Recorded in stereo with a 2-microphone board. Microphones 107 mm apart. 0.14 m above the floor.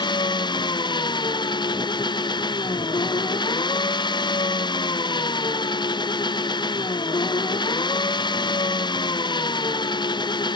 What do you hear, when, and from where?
0.0 s an engine running: 50° left (ahead or behind)